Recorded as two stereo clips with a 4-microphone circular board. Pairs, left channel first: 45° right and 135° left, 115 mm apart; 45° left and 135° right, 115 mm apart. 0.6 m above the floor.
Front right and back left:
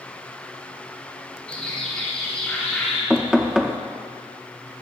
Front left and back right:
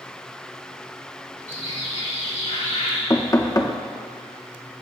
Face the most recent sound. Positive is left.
turn(degrees=55)